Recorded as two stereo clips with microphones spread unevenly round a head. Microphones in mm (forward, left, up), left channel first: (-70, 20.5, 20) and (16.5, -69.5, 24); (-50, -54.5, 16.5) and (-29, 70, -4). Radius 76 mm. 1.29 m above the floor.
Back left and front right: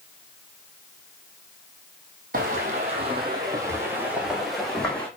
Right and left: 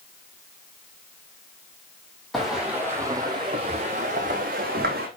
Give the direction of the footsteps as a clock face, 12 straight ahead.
12 o'clock.